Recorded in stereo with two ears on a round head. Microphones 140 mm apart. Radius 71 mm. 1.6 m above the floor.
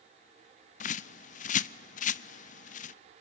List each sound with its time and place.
0.8 s a bird: 50° left (ahead or behind), 0.5 m